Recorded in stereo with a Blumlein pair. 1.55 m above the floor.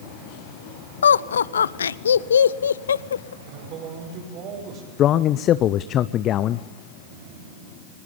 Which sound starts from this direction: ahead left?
A man speaking, at 5.0 s.